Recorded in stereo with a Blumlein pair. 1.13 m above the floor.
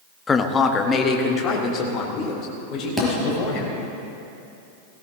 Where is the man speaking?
15° left, 1.0 m; by 3.7 s 30° left, 5.5 m.